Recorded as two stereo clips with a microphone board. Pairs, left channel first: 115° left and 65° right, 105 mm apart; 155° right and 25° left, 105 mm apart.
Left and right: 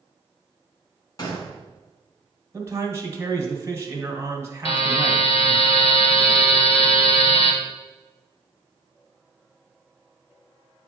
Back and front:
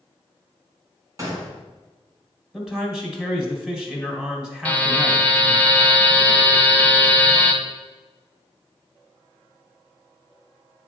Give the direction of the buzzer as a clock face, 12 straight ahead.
8 o'clock.